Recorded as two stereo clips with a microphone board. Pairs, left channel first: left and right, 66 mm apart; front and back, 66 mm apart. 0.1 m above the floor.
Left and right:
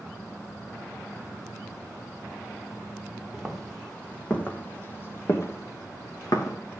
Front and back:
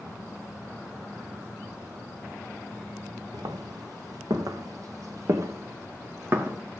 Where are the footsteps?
Straight behind, 2.5 m; by 6.6 s 120° left, 3 m.